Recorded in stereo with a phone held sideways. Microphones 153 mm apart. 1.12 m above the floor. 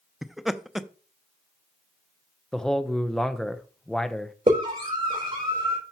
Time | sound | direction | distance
0.2 | laughter | centre (ahead or behind) | 0.5 m
2.5 | a man speaking | 5° left (ahead or behind) | 0.7 m
4.5 | a scream | 45° right (ahead or behind) | 4.5 m